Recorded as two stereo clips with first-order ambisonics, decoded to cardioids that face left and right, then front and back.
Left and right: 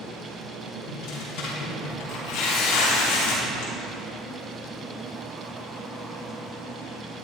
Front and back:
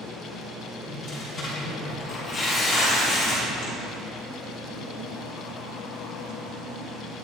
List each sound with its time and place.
0.9 s tearing paper: 75° left, 5.5 m